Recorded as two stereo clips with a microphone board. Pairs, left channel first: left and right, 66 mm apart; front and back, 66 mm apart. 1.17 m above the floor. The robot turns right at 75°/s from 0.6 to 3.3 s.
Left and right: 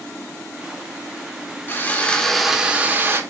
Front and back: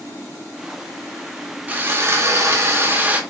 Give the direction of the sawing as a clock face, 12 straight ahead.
8 o'clock.